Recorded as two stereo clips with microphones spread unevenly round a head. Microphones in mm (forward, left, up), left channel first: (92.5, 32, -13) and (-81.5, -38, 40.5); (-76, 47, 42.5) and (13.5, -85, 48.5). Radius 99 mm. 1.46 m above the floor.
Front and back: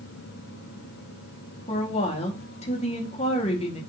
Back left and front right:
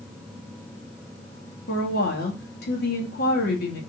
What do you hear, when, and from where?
1.7 s a woman speaking: 85° left, 2.5 m